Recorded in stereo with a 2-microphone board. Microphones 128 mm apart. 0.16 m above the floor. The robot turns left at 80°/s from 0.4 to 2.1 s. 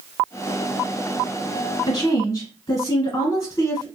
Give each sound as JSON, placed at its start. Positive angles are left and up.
{"t": 1.9, "sound": "a woman speaking", "side_deg": 35, "distance_m": 1.6}